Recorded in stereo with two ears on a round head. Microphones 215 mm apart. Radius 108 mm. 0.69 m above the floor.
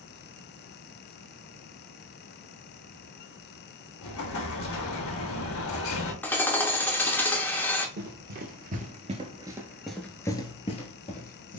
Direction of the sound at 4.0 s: 60° left (ahead or behind).